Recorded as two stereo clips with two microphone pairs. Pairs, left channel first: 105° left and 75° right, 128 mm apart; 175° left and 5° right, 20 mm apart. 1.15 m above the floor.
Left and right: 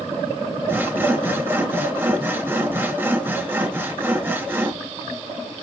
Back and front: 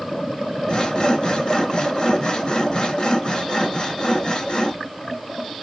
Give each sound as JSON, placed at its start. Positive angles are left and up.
{"t": 0.7, "sound": "sawing", "azimuth_deg": -145, "distance_m": 0.8}